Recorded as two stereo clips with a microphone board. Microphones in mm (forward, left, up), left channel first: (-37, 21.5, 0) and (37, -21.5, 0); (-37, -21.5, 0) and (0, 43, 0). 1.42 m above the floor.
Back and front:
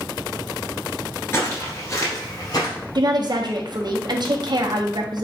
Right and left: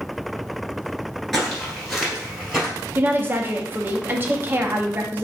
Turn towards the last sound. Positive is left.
turn(degrees=0)